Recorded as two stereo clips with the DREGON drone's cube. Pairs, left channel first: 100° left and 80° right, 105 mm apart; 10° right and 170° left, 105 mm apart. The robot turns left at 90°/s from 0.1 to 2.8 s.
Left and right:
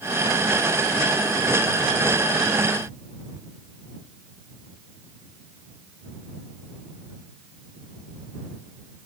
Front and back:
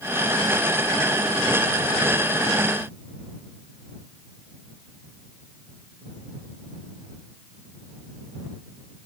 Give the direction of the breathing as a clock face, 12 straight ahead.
No breathing in this recording.